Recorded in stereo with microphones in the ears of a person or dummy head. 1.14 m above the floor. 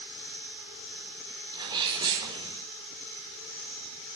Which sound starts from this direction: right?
A sneeze, at 1.5 s.